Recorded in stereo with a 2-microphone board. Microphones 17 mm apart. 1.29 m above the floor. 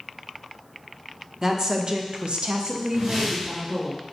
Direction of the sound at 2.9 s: 50° right (ahead or behind).